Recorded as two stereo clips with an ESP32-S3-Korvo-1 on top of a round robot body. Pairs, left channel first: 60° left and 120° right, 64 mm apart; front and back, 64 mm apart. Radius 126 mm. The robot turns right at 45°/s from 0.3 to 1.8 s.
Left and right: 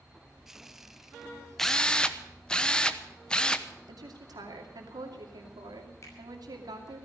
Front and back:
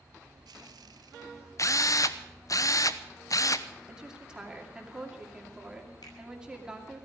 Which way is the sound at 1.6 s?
25° right.